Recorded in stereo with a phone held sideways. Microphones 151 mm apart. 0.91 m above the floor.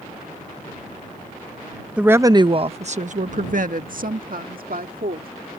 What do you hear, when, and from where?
2.0 s a woman speaking: 5° right (ahead or behind); by 5.3 s 75° right (ahead or behind)